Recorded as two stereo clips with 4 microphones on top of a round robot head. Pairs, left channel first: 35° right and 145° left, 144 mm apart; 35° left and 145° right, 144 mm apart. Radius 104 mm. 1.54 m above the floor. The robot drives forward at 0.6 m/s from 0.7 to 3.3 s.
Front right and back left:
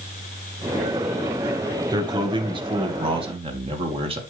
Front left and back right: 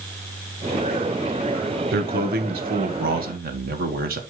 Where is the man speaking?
150° right, 1.5 m; by 4.2 s 160° right, 2 m.